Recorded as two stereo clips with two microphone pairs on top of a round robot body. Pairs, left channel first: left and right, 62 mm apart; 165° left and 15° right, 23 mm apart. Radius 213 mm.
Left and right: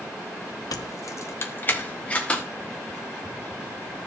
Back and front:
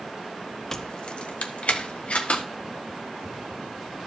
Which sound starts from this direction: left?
Keys jangling, at 0.7 s.